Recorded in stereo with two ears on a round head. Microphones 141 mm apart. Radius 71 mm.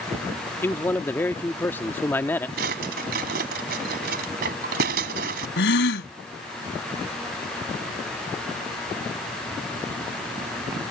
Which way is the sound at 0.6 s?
15° left (ahead or behind).